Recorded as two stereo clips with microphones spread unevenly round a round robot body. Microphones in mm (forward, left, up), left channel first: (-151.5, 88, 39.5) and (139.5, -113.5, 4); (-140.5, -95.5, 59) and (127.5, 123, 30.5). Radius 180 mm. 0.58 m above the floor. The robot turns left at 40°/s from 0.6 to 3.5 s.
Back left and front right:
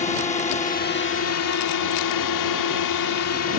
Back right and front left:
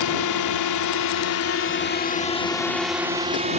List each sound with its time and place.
0.0 s a drone: 145° right; by 3.6 s 100° left